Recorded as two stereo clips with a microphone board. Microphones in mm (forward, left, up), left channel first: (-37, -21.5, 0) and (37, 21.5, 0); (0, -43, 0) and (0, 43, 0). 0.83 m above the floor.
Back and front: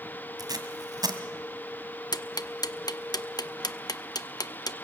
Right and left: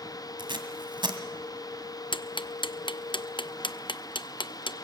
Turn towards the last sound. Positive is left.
turn(degrees=-110)